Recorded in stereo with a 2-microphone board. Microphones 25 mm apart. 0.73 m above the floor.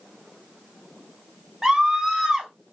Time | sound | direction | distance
1.6 | a scream | 15° right (ahead or behind) | 1.0 m